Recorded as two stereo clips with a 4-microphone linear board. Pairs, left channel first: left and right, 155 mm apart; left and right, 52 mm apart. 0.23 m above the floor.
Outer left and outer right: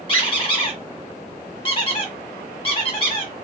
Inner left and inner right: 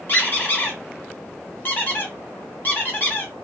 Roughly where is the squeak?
Left.